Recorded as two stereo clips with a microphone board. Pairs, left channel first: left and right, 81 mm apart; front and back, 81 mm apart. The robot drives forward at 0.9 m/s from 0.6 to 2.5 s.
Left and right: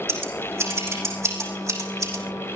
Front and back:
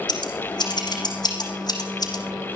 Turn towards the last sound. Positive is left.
turn(degrees=-45)